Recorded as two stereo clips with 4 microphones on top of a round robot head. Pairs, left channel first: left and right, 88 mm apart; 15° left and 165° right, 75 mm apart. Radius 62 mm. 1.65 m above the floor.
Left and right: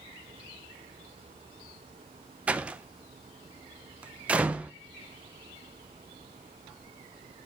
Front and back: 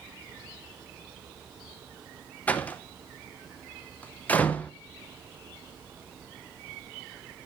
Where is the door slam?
35° right, 0.7 m.